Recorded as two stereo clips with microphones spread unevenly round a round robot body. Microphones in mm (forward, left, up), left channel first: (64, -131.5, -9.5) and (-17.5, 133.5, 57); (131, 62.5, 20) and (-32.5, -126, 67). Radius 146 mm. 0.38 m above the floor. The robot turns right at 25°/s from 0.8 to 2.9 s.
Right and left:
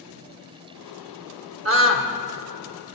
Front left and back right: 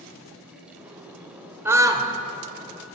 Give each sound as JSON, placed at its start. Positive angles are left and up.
{"t": 1.6, "sound": "a scream", "azimuth_deg": 140, "distance_m": 1.0}